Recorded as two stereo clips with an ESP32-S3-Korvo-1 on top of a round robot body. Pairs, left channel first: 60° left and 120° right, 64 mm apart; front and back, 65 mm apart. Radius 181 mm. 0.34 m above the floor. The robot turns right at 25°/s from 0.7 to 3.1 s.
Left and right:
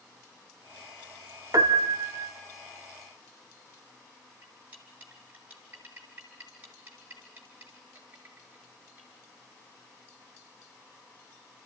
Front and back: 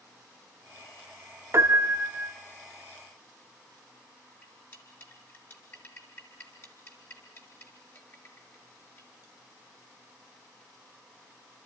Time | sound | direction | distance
1.5 | a piano | 140° right | 2 m
4.4 | cutlery clinking | 50° right | 5 m